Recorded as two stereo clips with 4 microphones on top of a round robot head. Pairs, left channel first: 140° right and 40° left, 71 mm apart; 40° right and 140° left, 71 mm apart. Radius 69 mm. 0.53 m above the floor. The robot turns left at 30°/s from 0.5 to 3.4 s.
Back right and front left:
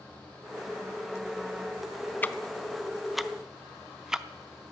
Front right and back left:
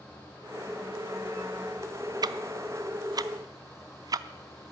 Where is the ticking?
155° left, 0.6 m; by 4.7 s 120° left, 0.6 m.